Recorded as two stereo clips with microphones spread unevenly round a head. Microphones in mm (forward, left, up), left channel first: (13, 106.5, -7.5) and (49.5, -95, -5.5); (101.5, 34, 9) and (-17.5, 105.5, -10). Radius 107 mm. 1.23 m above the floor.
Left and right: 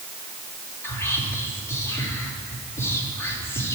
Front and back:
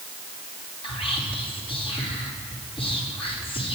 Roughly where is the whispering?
Ahead.